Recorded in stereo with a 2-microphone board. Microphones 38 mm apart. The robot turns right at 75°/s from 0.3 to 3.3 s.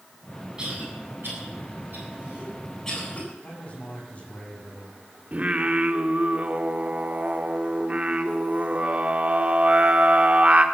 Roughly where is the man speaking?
Left.